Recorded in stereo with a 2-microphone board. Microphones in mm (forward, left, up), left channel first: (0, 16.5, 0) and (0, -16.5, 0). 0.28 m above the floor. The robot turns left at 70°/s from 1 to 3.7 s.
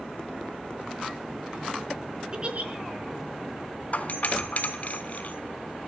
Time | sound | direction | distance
2.3 | a giggle | 25° right (ahead or behind) | 3.5 m
3.9 | a doorbell | 50° left (ahead or behind) | 3 m